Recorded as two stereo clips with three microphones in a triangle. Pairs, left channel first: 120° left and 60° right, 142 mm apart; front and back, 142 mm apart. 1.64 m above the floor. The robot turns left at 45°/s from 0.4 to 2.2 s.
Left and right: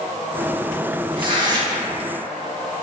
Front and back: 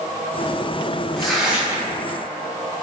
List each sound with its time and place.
1.2 s tearing paper: 85° right, 0.8 m; by 1.9 s 120° right, 0.8 m